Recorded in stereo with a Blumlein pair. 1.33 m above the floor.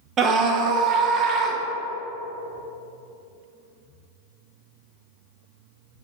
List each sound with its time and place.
0.2 s a scream: 30° right, 0.6 m